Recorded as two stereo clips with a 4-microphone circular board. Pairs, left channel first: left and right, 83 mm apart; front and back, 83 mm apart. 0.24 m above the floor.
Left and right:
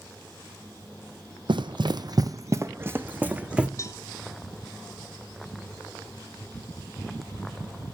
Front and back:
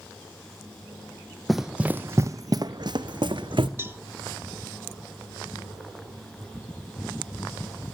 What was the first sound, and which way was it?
Running footsteps, 90° right.